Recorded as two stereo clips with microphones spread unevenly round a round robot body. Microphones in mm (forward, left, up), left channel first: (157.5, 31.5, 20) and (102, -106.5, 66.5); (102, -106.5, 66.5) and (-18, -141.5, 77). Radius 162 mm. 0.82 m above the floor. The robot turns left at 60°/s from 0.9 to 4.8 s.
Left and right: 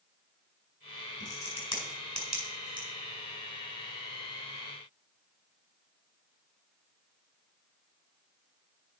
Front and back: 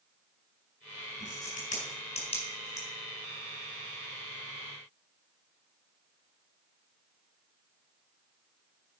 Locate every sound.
1.2 s a crack: 45° left, 5 m; by 2.9 s 55° right, 5 m